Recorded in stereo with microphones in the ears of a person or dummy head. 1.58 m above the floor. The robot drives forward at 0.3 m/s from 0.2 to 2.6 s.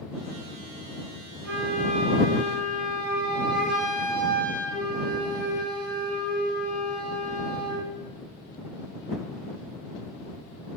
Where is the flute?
75° right (ahead or behind), 1.9 m; by 7.9 s 65° right (ahead or behind), 2 m.